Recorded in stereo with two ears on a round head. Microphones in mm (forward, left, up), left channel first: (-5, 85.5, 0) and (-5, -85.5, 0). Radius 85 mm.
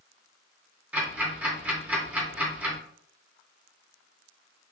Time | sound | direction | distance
0.9 | ticking | 10° right (ahead or behind) | 1.0 m